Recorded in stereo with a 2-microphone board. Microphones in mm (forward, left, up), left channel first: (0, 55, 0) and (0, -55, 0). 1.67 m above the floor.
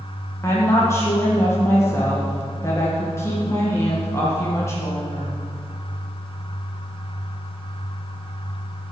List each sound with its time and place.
0.4 s a woman speaking: 25° left (ahead or behind), 2.0 m